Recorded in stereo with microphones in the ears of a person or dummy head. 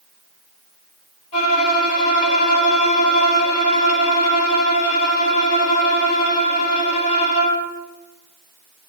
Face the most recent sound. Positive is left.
turn(degrees=40)  # may be behind; listen again after turning